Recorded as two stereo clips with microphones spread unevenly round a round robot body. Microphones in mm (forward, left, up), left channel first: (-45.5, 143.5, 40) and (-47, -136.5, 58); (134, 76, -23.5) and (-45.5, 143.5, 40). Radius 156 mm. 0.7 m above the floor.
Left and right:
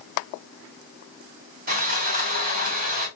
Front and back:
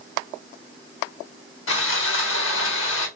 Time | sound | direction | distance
1.7 | sawing | 25° right | 1.5 m